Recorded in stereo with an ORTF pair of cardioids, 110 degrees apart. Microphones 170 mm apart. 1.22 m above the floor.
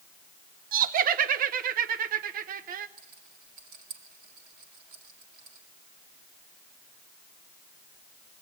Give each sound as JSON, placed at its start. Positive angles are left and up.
{"t": 0.7, "sound": "laughter", "azimuth_deg": -55, "distance_m": 1.0}
{"t": 3.0, "sound": "a rattle", "azimuth_deg": -70, "distance_m": 3.5}